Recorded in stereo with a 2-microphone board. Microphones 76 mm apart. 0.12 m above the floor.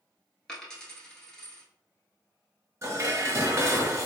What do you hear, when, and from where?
0.5 s a dropped coin: 10° left (ahead or behind), 1.0 m
2.8 s dishes clattering: 40° right (ahead or behind), 1.1 m